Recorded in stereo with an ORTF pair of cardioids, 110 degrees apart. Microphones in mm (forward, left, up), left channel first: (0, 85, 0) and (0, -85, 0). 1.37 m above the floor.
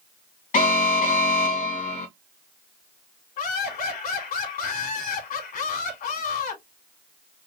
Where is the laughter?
60° left, 3 m.